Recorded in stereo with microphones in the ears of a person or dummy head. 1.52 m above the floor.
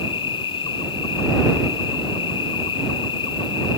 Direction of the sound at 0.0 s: 30° left (ahead or behind).